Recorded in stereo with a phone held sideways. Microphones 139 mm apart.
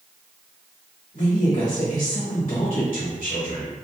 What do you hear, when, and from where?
1.1 s a woman speaking: 65° left (ahead or behind), 1.6 m